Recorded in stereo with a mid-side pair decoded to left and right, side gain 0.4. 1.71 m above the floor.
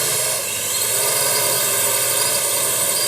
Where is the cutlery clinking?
I don't hear cutlery clinking.